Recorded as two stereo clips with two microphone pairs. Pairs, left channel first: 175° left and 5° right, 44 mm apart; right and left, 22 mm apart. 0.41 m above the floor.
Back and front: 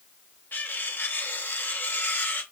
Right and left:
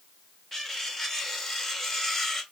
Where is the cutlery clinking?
160° right, 1.1 m.